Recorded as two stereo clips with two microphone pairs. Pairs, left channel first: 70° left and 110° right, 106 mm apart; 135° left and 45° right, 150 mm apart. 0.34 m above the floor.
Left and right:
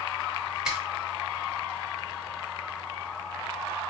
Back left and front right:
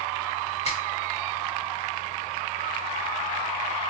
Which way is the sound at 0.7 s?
165° left.